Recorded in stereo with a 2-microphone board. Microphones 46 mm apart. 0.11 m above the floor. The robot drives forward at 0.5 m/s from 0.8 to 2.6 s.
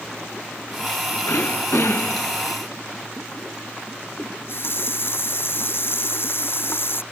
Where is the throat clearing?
60° left (ahead or behind).